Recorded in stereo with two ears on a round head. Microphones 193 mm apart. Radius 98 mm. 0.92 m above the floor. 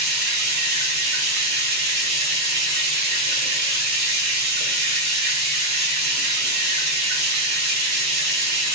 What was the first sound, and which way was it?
Running water, 50° right (ahead or behind).